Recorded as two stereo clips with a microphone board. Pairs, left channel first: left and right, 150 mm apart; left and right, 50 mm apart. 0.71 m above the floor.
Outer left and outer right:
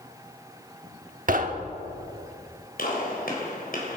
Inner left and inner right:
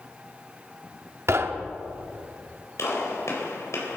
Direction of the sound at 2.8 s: 75° left (ahead or behind).